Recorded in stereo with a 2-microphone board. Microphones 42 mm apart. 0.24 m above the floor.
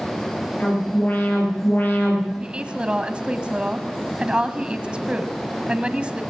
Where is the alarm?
50° left (ahead or behind), 9 m.